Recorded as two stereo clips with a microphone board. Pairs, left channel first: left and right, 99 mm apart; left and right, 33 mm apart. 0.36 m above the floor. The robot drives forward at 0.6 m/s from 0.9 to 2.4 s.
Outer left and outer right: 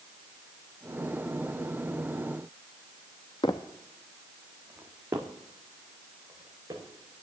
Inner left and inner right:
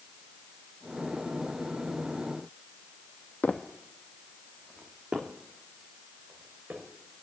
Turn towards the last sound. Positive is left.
turn(degrees=-40)  # may be behind; listen again after turning